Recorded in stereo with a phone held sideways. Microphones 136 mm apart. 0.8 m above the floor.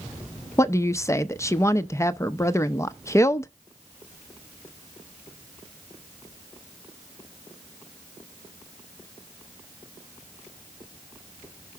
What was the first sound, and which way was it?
A woman speaking, 20° left (ahead or behind).